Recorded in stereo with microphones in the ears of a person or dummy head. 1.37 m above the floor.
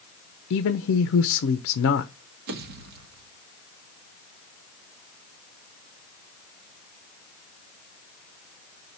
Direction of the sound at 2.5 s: 55° right (ahead or behind).